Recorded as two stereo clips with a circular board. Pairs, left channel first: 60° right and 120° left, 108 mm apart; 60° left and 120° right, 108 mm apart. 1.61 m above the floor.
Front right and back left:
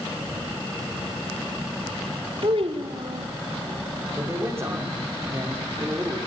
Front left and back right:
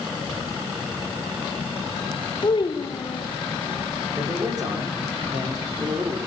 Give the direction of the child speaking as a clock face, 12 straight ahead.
9 o'clock.